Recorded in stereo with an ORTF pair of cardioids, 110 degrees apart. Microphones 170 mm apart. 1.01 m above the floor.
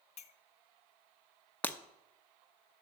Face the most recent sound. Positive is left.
turn(degrees=10)